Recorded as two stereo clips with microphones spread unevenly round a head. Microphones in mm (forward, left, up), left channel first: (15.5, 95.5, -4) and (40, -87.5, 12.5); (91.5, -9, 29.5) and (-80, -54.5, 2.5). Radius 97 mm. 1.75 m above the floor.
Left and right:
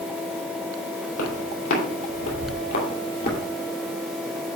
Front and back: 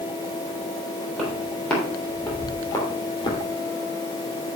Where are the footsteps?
105° left, 3.5 m; by 3.4 s 70° left, 2.5 m.